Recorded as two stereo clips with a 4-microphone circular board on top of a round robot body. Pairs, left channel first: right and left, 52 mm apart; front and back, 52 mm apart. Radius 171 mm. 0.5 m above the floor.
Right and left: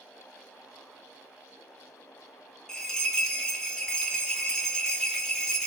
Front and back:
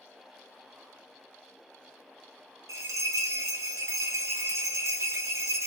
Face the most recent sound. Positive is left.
turn(degrees=-165)